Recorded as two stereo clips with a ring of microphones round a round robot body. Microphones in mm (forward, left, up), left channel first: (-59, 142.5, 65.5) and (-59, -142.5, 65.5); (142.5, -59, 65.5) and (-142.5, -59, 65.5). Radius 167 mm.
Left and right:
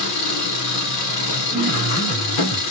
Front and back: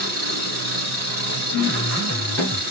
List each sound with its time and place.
0.0 s an engine running: 120° left, 1.8 m
1.5 s a piano: 30° left, 1.0 m